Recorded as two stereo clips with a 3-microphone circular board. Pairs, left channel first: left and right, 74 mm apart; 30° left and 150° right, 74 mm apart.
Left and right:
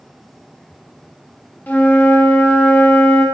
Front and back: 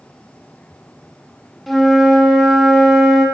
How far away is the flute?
About 1.0 m.